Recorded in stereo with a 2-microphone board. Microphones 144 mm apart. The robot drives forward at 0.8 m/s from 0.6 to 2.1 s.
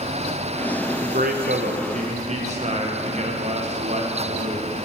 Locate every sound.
1.0 s a man speaking: 60° right (ahead or behind), 0.7 m; by 4.8 s 50° right (ahead or behind), 0.8 m